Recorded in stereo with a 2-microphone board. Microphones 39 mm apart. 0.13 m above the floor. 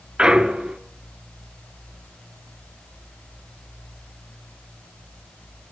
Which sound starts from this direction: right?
A clunk, at 0.2 s.